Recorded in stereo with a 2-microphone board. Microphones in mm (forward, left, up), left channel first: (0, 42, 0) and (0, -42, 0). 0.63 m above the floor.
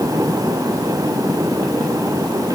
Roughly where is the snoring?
No snoring in this recording.